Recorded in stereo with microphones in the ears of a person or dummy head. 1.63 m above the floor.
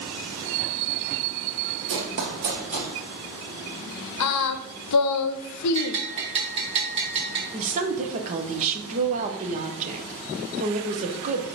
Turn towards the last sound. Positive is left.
turn(degrees=-45)  # may be behind; listen again after turning